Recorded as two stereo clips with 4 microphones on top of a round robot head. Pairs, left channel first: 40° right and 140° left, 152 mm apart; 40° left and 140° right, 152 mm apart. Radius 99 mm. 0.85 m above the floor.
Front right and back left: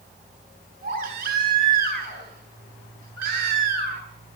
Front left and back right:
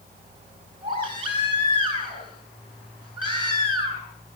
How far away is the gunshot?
No gunshot in this recording.